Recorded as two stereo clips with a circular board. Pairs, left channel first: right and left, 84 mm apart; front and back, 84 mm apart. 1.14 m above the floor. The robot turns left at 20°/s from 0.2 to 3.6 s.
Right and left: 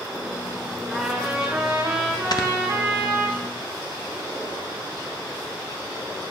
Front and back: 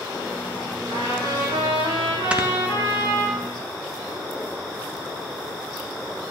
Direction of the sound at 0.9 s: 170° right.